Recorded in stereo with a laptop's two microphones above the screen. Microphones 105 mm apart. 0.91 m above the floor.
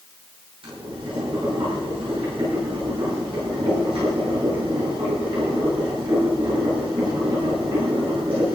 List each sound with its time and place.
0.6 s boiling: 55° right (ahead or behind), 8 m